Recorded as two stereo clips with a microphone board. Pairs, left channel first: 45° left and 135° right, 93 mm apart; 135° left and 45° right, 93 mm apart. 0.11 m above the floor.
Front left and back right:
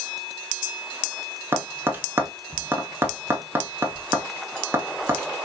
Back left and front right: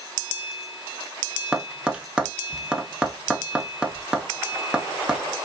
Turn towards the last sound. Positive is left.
turn(degrees=-115)